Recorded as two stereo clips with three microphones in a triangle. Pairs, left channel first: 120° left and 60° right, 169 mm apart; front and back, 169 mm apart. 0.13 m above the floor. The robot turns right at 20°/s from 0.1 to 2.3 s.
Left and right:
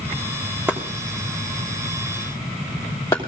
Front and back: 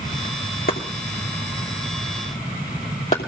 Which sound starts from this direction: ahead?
Chopping, at 0.7 s.